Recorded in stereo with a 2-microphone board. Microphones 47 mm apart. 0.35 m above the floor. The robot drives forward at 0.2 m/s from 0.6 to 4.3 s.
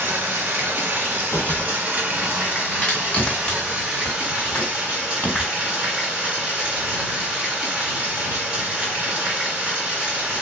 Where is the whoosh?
45° left (ahead or behind), 1.3 m; by 1.8 s 50° left (ahead or behind), 1.2 m.